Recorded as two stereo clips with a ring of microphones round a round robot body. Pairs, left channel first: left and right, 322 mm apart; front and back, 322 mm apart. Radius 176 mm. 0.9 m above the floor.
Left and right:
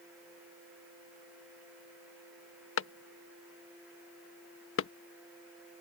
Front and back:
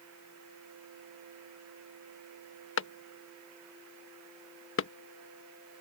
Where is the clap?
45° left.